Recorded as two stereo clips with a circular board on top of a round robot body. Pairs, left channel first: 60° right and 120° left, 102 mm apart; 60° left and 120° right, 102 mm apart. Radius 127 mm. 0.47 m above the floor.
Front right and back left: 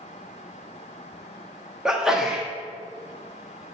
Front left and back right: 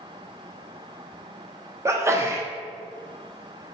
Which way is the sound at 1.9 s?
160° right.